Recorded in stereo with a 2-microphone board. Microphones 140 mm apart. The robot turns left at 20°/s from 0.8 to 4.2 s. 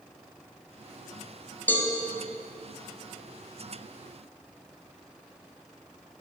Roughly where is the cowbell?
Centre.